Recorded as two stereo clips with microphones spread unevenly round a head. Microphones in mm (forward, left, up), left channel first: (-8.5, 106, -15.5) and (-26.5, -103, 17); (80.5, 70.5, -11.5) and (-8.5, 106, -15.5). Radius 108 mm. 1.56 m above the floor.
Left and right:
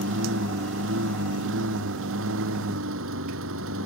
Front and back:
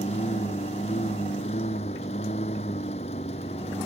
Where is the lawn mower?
60° right; by 3.9 s 65° right.